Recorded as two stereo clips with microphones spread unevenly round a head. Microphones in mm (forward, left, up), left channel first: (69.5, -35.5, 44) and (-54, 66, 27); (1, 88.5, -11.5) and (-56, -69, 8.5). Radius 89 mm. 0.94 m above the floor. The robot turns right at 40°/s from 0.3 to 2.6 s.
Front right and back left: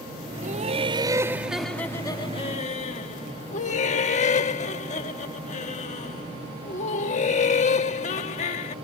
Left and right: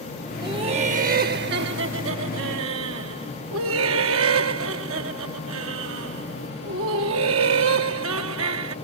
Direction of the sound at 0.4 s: 175° right.